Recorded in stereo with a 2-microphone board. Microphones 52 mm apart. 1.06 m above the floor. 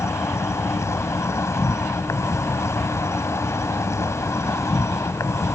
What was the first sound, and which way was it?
An insect, 70° left (ahead or behind).